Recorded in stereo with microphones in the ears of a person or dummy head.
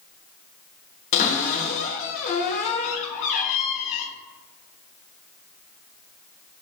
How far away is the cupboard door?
About 0.9 m.